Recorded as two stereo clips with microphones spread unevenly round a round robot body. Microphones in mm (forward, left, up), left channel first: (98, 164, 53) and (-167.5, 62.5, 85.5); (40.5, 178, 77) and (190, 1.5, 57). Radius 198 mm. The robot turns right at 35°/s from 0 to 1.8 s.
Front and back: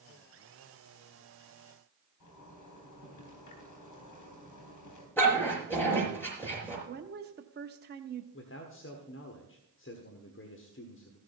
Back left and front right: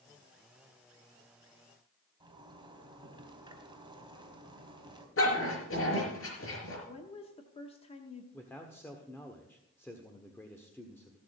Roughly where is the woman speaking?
Behind.